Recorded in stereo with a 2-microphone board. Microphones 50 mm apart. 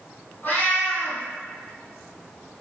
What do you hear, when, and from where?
0.4 s a cat meowing: 45° left (ahead or behind), 1.4 m